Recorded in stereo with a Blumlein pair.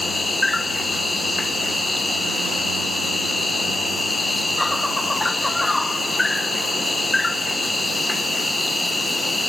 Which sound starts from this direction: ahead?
An insect, at 0.0 s.